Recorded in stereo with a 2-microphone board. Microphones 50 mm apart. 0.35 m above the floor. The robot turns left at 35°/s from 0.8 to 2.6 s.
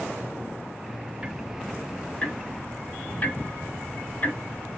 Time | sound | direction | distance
1.2 | ticking | 15° right (ahead or behind) | 0.8 m